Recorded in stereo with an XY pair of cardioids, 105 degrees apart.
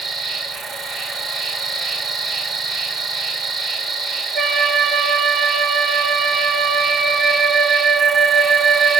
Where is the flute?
45° right, 1.3 m.